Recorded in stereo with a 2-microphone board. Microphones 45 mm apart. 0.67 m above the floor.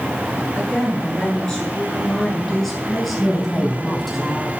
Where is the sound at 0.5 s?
20° left (ahead or behind), 9 m; by 4.2 s 5° right (ahead or behind), 8 m.